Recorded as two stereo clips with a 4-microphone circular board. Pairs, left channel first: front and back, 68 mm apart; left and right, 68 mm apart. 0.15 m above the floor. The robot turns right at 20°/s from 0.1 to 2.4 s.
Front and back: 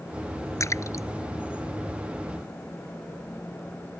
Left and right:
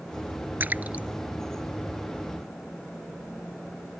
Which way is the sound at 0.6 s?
35° right.